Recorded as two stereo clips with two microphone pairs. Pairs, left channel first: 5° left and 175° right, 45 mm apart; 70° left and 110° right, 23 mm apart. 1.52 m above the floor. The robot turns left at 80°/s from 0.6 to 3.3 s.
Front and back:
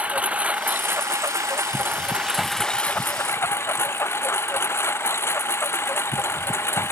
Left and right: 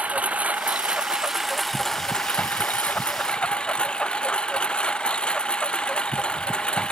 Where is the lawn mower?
110° right; by 6.9 s 30° left.